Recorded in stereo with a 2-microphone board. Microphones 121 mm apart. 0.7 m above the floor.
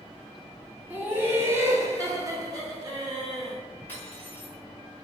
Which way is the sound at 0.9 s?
15° right (ahead or behind).